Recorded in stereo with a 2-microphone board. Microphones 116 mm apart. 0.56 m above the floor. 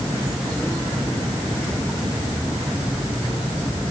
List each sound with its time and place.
Only background noise.